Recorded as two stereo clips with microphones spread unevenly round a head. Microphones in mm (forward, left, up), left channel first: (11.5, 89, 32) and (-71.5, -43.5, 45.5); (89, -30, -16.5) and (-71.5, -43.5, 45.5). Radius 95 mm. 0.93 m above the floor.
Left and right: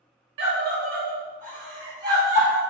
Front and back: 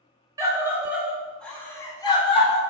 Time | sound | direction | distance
0.4 | a scream | 100° right | 1.4 m